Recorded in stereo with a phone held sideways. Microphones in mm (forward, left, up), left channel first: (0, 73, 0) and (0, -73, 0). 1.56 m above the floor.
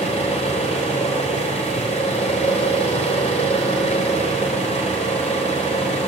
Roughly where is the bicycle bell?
I don't hear a bicycle bell.